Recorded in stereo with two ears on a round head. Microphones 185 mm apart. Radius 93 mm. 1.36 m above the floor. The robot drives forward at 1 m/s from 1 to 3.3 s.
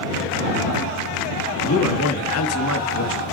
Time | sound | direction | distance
1.7 | a man speaking | 70° left (ahead or behind) | 2.5 m